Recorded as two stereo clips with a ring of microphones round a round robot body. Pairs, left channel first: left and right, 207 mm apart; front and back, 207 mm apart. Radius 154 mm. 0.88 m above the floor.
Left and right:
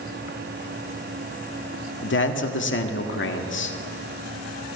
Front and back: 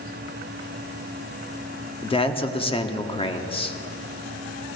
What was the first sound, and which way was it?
A man speaking, 65° left.